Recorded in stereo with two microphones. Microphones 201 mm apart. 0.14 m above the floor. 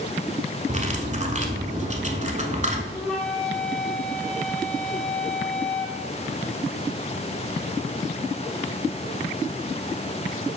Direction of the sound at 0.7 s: 35° right (ahead or behind).